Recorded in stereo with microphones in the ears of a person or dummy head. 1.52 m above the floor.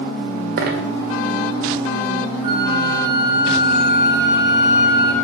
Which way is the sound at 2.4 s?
25° right (ahead or behind).